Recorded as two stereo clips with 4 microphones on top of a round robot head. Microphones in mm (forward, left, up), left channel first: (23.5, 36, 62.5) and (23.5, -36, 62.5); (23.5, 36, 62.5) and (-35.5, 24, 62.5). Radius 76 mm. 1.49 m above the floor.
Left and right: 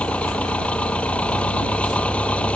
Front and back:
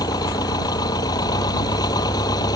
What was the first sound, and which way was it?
An engine running, 15° left.